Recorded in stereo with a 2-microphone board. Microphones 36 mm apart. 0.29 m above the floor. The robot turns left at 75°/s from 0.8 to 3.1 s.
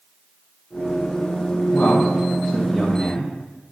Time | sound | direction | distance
1.7 | a man speaking | 55° left (ahead or behind) | 1.6 m